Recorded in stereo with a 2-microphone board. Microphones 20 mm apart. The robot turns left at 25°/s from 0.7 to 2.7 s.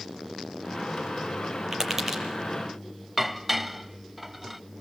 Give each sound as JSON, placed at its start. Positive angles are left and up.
{"t": 1.7, "sound": "tapping", "side_deg": -20, "distance_m": 7.0}
{"t": 3.2, "sound": "dishes clattering", "side_deg": -10, "distance_m": 0.8}